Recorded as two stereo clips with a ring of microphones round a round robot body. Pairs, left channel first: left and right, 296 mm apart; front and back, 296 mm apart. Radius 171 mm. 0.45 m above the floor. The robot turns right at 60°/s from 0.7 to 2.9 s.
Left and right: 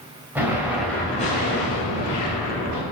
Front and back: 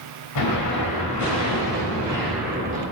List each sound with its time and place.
0.3 s an explosion: 5° right, 3 m; by 2.8 s 120° left, 3 m